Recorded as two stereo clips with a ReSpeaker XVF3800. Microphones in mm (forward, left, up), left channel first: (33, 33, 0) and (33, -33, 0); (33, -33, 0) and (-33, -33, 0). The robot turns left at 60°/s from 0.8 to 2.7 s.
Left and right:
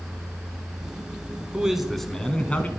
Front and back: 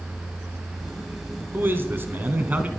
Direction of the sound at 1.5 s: 160° right.